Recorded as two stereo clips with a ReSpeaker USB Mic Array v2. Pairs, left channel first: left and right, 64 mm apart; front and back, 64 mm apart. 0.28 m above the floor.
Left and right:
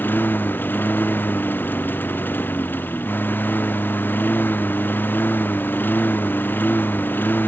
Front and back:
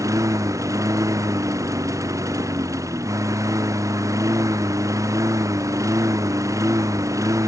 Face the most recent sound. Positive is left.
turn(degrees=150)